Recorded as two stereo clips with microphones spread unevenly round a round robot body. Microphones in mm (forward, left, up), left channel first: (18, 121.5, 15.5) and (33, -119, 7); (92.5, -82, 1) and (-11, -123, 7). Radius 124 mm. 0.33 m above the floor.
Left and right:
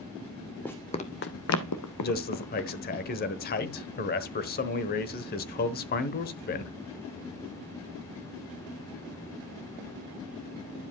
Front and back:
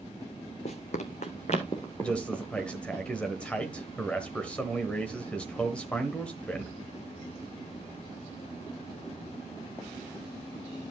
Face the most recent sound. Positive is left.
turn(degrees=95)